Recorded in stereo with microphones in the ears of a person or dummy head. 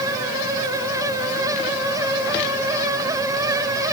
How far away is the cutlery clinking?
No cutlery clinking in this recording.